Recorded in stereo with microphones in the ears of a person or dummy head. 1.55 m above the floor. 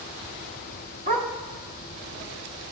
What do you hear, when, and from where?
1.1 s a dog barking: 40° right (ahead or behind), 1.3 m